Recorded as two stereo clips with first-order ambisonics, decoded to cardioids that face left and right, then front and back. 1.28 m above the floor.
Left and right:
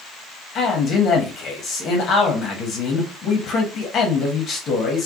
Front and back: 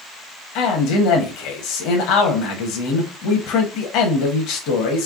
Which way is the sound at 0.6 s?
35° left.